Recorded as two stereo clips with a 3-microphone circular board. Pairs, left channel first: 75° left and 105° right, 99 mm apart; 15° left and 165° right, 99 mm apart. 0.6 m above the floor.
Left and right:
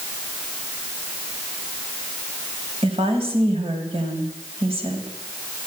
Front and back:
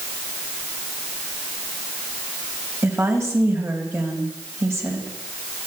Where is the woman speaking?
105° right, 4 m.